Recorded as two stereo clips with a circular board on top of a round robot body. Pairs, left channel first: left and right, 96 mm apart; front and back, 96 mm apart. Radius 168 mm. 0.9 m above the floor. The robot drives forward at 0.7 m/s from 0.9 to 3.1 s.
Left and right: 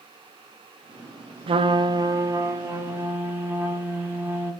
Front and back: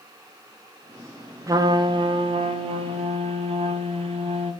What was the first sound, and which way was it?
A trumpet, 120° right.